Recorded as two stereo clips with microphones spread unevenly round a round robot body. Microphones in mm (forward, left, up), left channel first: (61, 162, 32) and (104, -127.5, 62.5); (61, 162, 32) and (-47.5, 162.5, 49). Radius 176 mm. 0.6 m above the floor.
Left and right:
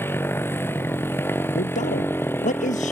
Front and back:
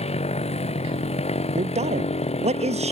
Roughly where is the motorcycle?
Ahead.